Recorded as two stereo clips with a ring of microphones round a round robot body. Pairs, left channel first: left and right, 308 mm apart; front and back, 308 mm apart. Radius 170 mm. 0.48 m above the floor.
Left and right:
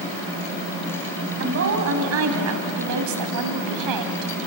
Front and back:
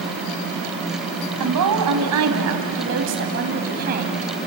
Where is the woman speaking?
145° right, 3.5 m; by 4.3 s 110° right, 3 m.